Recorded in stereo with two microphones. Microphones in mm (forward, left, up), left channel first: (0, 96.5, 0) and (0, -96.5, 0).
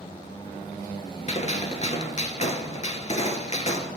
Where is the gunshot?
35° left (ahead or behind), 0.8 m.